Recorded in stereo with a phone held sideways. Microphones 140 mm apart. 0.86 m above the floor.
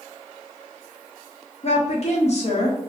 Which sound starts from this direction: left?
A woman speaking, at 1.6 s.